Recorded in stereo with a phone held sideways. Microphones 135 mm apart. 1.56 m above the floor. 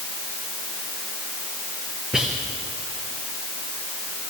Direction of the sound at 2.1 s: 5° right (ahead or behind).